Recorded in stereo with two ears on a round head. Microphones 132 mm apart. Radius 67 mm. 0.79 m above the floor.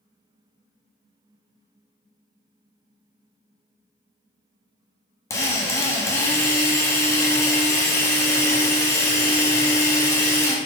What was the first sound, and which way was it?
A drill, 20° left (ahead or behind).